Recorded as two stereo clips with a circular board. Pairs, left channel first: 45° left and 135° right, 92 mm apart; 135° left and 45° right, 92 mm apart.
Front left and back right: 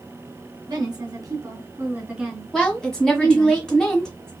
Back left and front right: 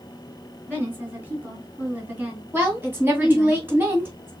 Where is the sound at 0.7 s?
110° right, 2.5 m; by 3.5 s 30° left, 2 m.